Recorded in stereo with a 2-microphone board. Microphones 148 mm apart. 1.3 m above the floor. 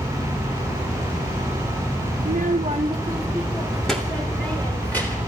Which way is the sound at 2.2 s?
80° right.